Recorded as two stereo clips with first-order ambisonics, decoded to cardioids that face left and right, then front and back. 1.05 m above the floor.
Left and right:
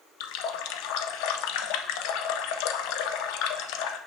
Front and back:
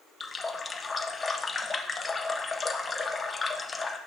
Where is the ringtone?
No ringtone in this recording.